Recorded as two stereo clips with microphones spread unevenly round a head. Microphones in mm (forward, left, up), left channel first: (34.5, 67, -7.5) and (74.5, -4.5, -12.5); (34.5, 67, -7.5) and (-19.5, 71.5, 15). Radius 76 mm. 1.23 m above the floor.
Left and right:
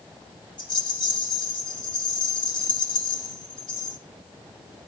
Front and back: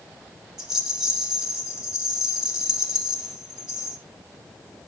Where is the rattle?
95° left, 3.5 m.